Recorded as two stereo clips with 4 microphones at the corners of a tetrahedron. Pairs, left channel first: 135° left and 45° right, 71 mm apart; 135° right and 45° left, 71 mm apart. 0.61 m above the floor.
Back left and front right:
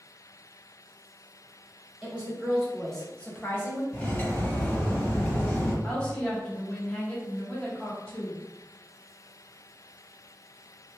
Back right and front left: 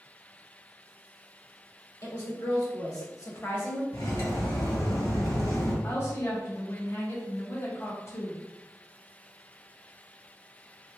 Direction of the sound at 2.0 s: 120° right.